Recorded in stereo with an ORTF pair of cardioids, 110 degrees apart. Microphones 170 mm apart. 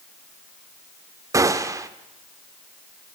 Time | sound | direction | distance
1.3 | a gunshot | 20° right | 2 m